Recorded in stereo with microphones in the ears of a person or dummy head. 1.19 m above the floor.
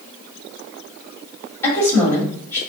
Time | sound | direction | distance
1.6 | a woman speaking | 15° left (ahead or behind) | 2 m